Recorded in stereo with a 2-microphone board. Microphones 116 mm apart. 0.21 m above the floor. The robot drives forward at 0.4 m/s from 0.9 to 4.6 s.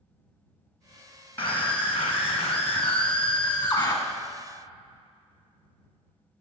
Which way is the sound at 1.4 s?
20° left (ahead or behind).